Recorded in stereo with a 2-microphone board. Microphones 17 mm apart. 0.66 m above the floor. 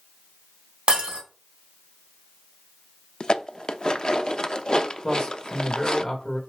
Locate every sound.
0.9 s breaking glass: 85° right, 3.5 m
3.2 s dishes clattering: 55° left (ahead or behind), 0.6 m
5.0 s a man speaking: 40° left (ahead or behind), 2.5 m